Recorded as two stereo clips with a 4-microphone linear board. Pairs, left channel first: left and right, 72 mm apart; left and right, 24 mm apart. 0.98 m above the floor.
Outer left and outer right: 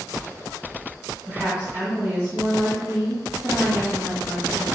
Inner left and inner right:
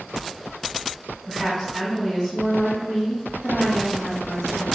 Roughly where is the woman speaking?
Right.